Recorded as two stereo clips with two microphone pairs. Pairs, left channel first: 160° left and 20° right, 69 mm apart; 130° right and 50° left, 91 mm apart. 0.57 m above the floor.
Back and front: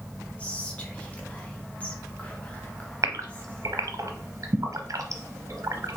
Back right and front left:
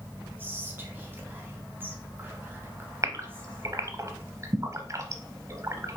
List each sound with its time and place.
0.4 s whispering: 105° left, 0.8 m
3.0 s a gasp: straight ahead, 0.7 m